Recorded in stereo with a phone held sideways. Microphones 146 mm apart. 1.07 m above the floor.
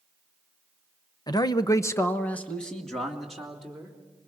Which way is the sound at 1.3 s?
25° left (ahead or behind).